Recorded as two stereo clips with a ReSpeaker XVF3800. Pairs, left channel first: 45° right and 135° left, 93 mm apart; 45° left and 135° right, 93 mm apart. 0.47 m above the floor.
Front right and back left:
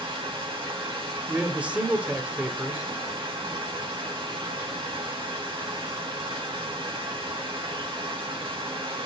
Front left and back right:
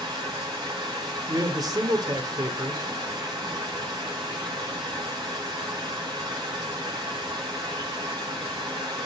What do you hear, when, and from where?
0.0 s running water: 175° left, 5 m
1.3 s a man speaking: 155° right, 1.6 m